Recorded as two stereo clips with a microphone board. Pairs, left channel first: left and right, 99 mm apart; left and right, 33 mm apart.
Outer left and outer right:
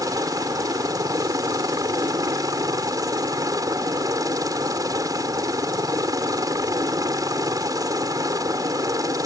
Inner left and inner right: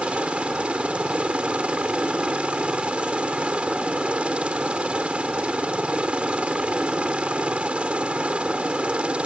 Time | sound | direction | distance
0.0 | a helicopter | 40° right (ahead or behind) | ?